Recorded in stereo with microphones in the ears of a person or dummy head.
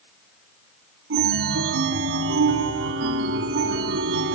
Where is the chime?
70° right (ahead or behind), 1.7 m.